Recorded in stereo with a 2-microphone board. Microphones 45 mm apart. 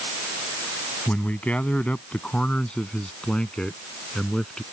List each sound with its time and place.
1.1 s a man speaking: 35° left (ahead or behind); by 4.6 s 15° left (ahead or behind)